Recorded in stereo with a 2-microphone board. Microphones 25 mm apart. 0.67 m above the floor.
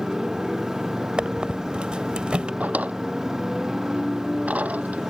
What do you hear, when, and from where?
0.0 s a motorcycle: 20° right (ahead or behind)
1.2 s a squeak: 50° right (ahead or behind)
2.6 s a drawer: 85° right